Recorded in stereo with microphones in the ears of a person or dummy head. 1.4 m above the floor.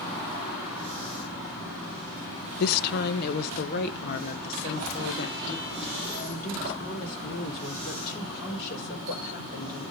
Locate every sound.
2.6 s a woman speaking: 55° left (ahead or behind), 0.5 m